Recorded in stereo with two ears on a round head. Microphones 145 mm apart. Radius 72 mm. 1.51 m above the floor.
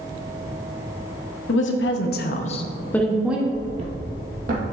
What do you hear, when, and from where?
1.5 s a woman speaking: 85° left, 1.1 m; by 3.4 s 10° right (ahead or behind), 1.0 m
3.5 s footsteps: 25° right (ahead or behind), 1.6 m; by 4.6 s 55° right (ahead or behind), 2.5 m